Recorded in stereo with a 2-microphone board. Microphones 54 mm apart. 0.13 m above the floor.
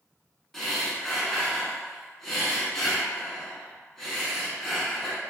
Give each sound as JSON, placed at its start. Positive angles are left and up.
{"t": 0.5, "sound": "breathing", "side_deg": 5, "distance_m": 0.6}